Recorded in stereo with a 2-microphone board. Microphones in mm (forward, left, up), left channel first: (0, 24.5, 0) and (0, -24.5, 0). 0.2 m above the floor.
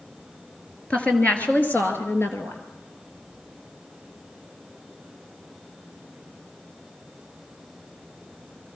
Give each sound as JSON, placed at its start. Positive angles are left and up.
{"t": 0.9, "sound": "a woman speaking", "side_deg": 25, "distance_m": 3.0}